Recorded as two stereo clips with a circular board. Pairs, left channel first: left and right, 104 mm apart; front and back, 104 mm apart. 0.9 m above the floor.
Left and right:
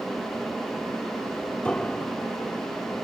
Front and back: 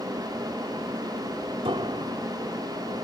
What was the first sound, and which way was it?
A piano, 165° left.